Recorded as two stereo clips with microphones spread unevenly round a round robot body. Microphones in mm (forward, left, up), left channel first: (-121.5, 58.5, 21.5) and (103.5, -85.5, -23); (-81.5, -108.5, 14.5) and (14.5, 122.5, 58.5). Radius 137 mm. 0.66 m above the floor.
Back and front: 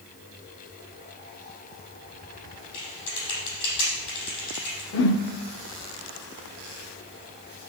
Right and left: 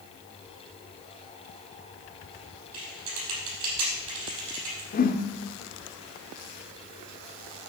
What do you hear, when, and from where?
2.7 s typing on a keyboard: 95° left, 5.5 m
4.9 s a whoosh: 165° right, 1.1 m